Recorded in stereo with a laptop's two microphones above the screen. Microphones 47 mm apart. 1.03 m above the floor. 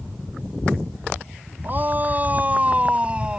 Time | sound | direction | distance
1.6 | a shout | 40° right (ahead or behind) | ?